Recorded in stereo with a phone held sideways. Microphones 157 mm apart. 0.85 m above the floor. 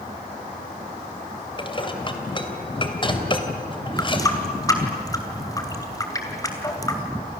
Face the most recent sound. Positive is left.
turn(degrees=20)  # may be behind; listen again after turning